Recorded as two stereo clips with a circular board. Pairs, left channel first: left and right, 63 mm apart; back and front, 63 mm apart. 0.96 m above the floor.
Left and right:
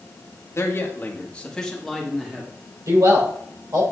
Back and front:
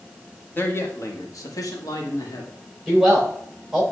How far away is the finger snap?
I don't hear a finger snap.